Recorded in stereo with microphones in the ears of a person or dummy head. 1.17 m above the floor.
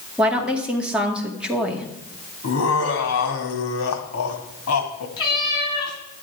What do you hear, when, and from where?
0.2 s a woman speaking: centre (ahead or behind), 2 m
2.4 s laughter: 80° left, 2.5 m
5.2 s a cat meowing: 30° left (ahead or behind), 4 m